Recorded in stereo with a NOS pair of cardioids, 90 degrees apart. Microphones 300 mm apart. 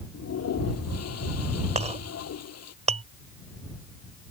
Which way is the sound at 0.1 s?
55° left.